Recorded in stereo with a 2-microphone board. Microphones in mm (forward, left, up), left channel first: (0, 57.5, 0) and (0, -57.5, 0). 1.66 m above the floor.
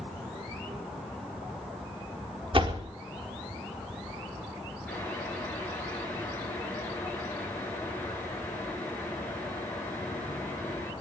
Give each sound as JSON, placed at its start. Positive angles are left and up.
{"t": 2.5, "sound": "a door slam", "side_deg": -50, "distance_m": 3.5}
{"t": 4.9, "sound": "boiling", "side_deg": 15, "distance_m": 8.0}